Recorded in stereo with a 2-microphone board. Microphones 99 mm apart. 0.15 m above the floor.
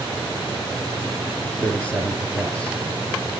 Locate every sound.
1.6 s a man speaking: 10° left (ahead or behind), 3 m